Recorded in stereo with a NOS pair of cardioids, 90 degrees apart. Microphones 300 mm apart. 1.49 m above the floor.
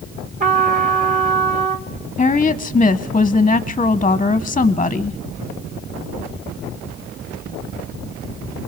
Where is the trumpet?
25° right, 1.9 m.